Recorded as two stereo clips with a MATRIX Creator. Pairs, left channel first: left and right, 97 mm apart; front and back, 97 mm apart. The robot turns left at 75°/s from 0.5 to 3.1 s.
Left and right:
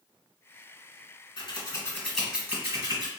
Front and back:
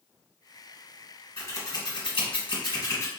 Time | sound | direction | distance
1.4 | scissors | 65° left | 1.2 m